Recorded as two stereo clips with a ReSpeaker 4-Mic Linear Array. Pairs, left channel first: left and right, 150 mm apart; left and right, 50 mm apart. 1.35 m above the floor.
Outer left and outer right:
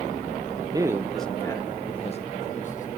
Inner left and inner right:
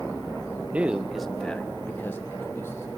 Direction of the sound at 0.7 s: 30° right (ahead or behind).